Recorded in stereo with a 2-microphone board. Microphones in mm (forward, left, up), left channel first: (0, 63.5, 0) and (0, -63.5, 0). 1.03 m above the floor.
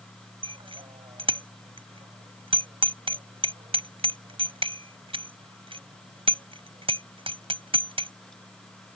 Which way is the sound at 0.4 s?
45° right (ahead or behind).